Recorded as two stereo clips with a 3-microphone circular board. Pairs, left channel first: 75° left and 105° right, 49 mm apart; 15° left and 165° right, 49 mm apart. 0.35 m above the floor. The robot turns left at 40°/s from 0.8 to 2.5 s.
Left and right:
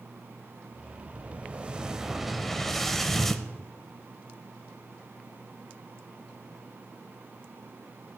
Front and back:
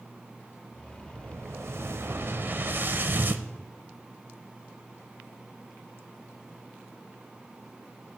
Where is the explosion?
140° right, 0.6 m; by 3.5 s 160° left, 0.6 m.